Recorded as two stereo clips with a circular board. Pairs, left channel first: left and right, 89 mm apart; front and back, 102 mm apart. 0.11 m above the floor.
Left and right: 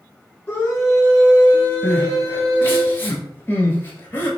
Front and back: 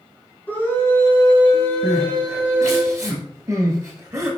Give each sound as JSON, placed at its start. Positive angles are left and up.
{"t": 0.5, "sound": "a scream", "azimuth_deg": 40, "distance_m": 1.5}
{"t": 1.8, "sound": "crying", "azimuth_deg": 140, "distance_m": 1.0}